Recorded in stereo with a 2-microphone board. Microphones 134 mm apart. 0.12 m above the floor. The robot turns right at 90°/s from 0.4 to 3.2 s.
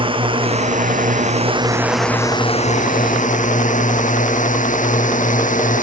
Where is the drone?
40° right (ahead or behind); by 5.8 s 75° left (ahead or behind).